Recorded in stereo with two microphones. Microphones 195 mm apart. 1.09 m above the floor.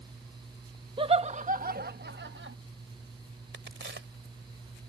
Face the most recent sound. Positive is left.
turn(degrees=-70)  # may be behind; listen again after turning